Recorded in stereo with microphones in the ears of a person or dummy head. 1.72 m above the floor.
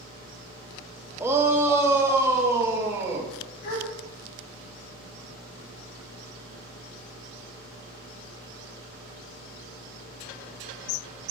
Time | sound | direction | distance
1.2 | a shout | 10° right (ahead or behind) | 1.2 m
3.6 | a gasp | 45° left (ahead or behind) | 2 m